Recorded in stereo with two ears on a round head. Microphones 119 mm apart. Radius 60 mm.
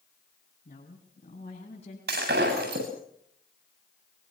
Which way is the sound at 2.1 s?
85° right.